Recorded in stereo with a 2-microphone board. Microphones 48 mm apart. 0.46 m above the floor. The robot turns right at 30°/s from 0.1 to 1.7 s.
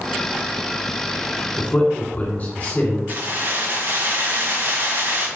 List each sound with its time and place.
1.6 s a man speaking: 35° left (ahead or behind), 1.8 m
3.1 s keys jangling: 45° right (ahead or behind), 1.9 m